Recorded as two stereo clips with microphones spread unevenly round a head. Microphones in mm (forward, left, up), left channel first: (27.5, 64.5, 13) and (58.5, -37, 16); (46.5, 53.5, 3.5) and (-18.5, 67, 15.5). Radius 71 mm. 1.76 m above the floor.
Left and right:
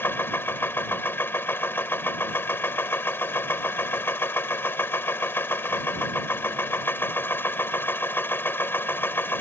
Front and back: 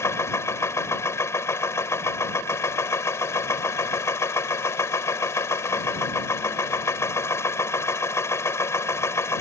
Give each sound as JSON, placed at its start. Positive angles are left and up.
{"t": 0.0, "sound": "a machine running", "azimuth_deg": 35}